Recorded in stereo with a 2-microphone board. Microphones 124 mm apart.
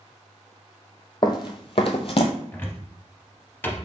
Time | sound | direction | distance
1.2 | running footsteps | 40° left (ahead or behind) | 0.7 m
2.5 | a cupboard door | 15° left (ahead or behind) | 0.7 m